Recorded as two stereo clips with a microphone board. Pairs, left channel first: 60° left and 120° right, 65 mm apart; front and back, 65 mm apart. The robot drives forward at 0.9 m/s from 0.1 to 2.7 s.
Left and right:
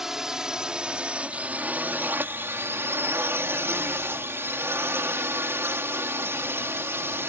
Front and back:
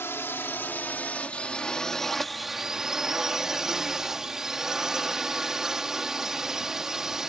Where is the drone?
40° right; by 7.3 s 100° right.